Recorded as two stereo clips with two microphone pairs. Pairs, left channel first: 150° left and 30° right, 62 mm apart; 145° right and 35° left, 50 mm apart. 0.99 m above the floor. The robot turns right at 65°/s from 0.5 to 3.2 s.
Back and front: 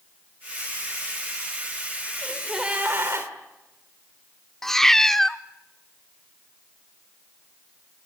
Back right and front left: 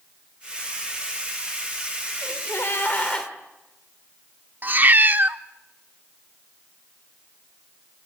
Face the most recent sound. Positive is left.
turn(degrees=65)